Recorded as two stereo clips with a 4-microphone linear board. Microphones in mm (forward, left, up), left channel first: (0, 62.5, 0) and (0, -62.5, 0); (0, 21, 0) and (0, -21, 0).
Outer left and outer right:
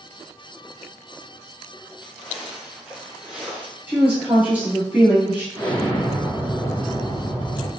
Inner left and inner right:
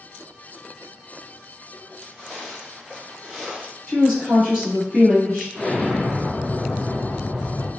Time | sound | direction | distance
2.0 | footsteps | 10° right (ahead or behind) | 1.7 m
3.9 | a woman speaking | 15° right (ahead or behind) | 1.8 m
5.5 | an explosion | 20° left (ahead or behind) | 1.5 m